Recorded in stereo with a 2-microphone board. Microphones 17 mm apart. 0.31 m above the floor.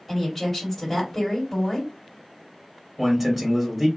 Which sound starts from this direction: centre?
A man speaking, at 3.0 s.